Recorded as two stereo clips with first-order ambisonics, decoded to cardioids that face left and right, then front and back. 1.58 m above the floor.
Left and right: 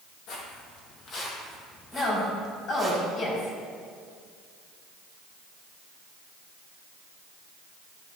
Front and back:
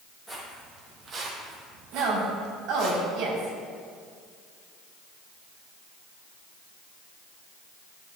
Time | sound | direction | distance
0.3 | footsteps | 95° left | 2.5 m
1.9 | a woman speaking | 145° left | 4 m